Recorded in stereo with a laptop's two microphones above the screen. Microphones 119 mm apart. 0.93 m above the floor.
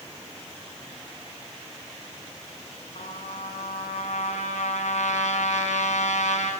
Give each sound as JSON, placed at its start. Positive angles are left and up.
{"t": 3.0, "sound": "a trumpet", "side_deg": 90, "distance_m": 7.0}